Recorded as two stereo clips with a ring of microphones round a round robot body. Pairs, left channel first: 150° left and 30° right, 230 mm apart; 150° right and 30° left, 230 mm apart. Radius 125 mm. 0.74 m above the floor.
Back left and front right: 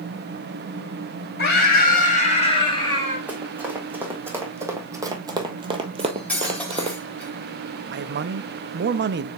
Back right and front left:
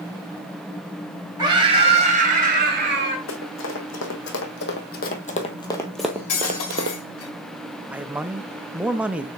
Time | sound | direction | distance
1.4 | a scream | 105° left | 4 m
3.3 | running footsteps | 115° right | 2 m
6.0 | cutlery clinking | 125° right | 2.5 m
7.9 | a man speaking | 55° right | 0.6 m